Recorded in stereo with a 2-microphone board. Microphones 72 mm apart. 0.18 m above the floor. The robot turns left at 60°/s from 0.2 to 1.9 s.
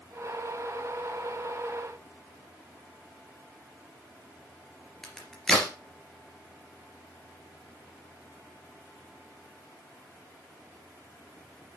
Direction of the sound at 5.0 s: 5° left (ahead or behind).